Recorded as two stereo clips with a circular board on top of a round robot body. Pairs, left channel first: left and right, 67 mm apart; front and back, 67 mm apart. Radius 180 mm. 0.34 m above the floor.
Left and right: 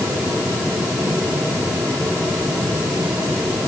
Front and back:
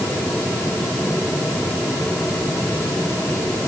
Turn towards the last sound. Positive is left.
No sound to turn to.